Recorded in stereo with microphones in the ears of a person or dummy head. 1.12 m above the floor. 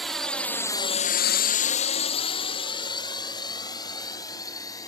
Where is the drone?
5° left (ahead or behind); by 4.9 s 20° left (ahead or behind).